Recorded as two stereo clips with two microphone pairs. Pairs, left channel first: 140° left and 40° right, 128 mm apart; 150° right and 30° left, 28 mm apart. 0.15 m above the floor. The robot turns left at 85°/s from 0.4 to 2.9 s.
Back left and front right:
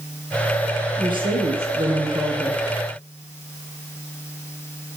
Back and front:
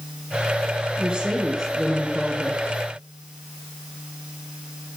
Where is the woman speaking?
Straight ahead, 2 m; by 2.6 s 140° right, 2 m.